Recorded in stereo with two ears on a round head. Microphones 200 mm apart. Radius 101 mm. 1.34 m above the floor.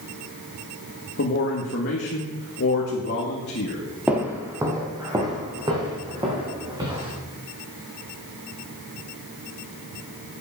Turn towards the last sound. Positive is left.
turn(degrees=-25)  # may be behind; listen again after turning